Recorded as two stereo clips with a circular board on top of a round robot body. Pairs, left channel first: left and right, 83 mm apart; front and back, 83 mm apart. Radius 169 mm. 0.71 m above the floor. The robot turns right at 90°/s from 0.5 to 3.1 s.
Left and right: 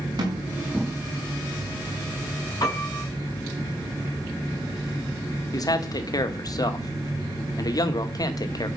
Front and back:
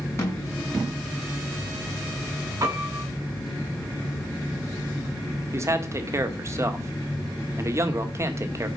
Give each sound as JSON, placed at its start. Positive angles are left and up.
{"t": 0.2, "sound": "a snare drum", "azimuth_deg": -55, "distance_m": 5.5}
{"t": 2.6, "sound": "a piano", "azimuth_deg": 130, "distance_m": 7.0}
{"t": 5.5, "sound": "a man speaking", "azimuth_deg": 125, "distance_m": 2.0}